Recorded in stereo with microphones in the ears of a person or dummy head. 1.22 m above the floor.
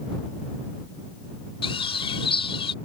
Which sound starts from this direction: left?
A bird, at 1.6 s.